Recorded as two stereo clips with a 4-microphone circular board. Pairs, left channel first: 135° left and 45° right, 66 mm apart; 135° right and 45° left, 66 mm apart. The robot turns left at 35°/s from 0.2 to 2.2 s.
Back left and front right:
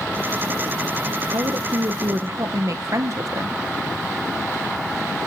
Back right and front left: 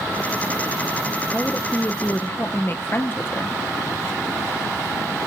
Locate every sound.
1.3 s a woman speaking: 50° right, 1.0 m; by 3.6 s 80° right, 1.0 m